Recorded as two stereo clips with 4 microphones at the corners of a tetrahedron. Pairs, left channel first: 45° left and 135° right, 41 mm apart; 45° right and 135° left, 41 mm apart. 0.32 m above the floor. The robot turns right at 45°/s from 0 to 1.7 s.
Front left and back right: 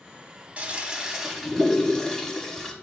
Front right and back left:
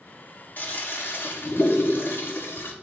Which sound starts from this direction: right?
A toilet flushing, at 0.6 s.